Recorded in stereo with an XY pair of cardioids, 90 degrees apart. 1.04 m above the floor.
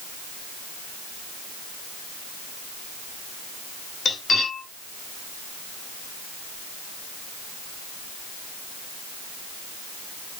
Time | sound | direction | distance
4.0 | cutlery clinking | 65° left | 2.5 m